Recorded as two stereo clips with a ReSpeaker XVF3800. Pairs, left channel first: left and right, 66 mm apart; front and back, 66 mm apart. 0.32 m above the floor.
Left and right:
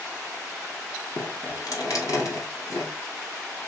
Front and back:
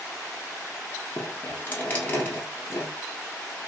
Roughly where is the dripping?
Ahead left.